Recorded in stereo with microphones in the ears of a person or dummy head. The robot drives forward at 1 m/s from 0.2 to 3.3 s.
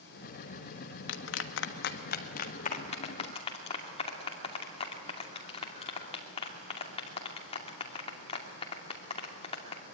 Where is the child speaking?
I don't hear a child speaking.